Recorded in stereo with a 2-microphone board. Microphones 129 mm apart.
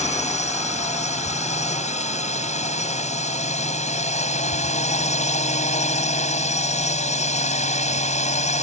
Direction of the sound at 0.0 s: 65° left (ahead or behind).